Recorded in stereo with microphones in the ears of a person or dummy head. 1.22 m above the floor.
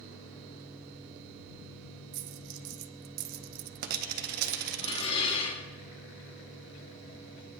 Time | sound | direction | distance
2.1 | a dropped coin | 50° right (ahead or behind) | 0.7 m
4.8 | dishes clattering | 35° left (ahead or behind) | 2 m